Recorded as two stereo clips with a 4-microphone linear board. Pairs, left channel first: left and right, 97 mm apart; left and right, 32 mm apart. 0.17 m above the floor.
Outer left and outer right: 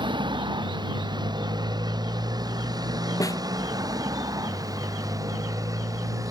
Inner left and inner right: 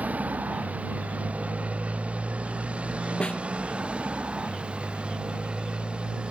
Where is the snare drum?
35° left (ahead or behind).